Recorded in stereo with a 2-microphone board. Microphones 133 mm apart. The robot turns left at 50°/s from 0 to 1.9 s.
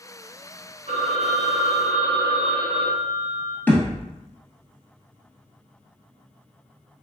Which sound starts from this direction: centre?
A thud, at 3.7 s.